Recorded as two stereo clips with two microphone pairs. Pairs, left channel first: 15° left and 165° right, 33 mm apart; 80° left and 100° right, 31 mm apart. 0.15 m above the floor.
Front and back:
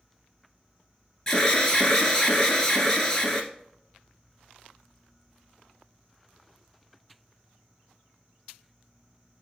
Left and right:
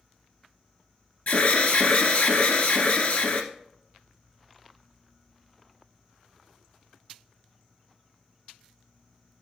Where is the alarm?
85° left, 1.6 m.